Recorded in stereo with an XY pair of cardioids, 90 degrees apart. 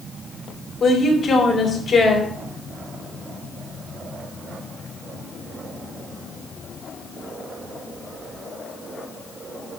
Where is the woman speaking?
50° left, 4 m.